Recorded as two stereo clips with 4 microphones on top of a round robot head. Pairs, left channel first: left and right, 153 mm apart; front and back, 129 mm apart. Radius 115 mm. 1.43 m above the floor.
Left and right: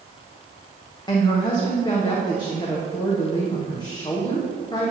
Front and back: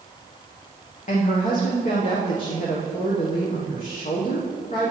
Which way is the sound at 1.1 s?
25° left.